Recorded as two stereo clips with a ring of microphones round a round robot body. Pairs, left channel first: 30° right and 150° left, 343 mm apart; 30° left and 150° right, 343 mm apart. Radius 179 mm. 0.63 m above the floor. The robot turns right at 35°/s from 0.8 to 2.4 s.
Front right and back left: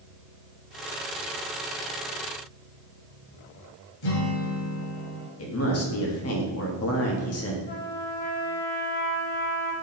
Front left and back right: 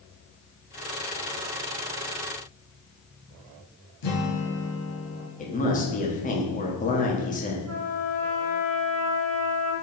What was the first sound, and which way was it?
A guitar, 5° right.